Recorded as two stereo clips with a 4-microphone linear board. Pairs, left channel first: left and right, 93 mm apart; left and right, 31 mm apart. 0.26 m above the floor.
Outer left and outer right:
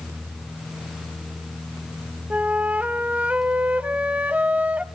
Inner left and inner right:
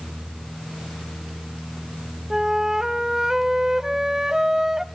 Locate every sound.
2.3 s a flute: 15° right (ahead or behind), 0.8 m